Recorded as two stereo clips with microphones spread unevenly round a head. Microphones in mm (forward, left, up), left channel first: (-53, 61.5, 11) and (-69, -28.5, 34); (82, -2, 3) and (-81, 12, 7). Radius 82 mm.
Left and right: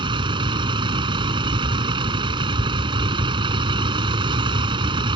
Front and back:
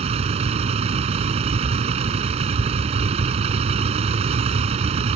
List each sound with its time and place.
0.0 s a vehicle: 130° right